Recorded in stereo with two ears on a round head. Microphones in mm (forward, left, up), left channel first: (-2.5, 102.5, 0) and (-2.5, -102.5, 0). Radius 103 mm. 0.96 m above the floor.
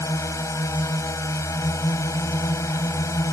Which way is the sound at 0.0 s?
15° left (ahead or behind).